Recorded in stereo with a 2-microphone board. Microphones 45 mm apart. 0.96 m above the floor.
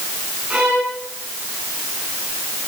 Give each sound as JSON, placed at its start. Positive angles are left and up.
{"t": 0.5, "sound": "a violin", "side_deg": -25, "distance_m": 9.0}